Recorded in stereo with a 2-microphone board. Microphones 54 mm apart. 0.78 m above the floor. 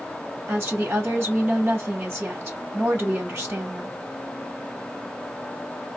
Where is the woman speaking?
45° right (ahead or behind), 1.0 m.